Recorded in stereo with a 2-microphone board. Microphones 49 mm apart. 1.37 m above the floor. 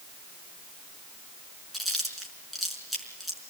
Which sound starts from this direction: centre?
Chewing, at 1.7 s.